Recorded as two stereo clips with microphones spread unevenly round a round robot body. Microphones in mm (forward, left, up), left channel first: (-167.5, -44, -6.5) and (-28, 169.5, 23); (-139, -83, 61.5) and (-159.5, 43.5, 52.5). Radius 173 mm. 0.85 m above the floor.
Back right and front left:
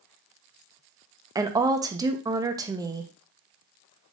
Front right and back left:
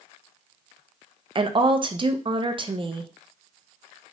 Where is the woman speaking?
135° left, 0.5 m.